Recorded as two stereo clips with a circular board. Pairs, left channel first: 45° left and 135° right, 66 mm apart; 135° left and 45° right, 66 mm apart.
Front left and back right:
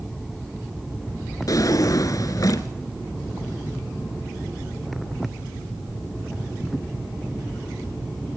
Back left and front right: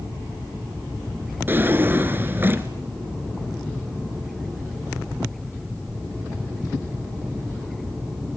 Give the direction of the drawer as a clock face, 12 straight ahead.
12 o'clock.